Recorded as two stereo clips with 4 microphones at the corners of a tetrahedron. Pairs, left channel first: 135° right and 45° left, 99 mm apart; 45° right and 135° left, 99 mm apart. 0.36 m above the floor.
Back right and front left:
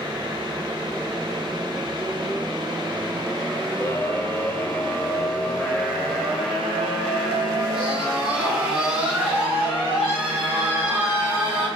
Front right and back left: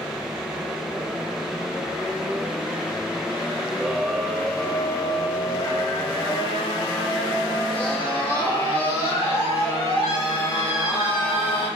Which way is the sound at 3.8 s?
150° right.